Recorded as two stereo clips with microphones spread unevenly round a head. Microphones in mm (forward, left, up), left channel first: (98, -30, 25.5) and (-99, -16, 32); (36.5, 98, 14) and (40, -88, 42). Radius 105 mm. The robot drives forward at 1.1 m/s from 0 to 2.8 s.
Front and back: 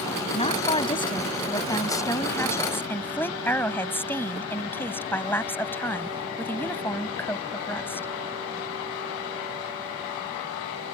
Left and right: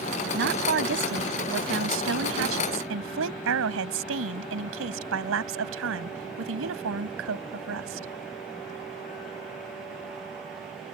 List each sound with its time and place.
0.3 s a woman speaking: 65° right; by 8.1 s 85° right